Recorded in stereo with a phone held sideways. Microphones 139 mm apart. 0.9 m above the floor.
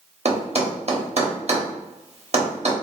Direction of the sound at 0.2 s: 50° right (ahead or behind).